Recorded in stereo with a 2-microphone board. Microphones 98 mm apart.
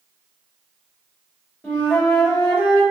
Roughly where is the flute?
Left.